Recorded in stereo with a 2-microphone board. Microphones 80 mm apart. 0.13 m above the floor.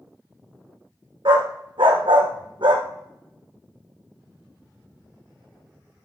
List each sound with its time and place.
1.2 s a dog barking: 80° right, 2.5 m